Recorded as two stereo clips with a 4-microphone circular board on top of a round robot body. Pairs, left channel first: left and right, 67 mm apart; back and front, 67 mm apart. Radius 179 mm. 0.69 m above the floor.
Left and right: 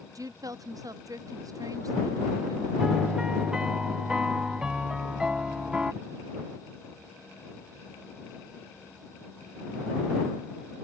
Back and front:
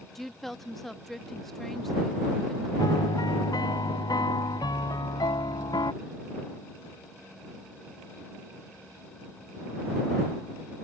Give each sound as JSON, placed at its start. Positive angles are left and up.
{"t": 0.1, "sound": "a woman speaking", "azimuth_deg": -95}
{"t": 2.8, "sound": "a piano", "azimuth_deg": -170}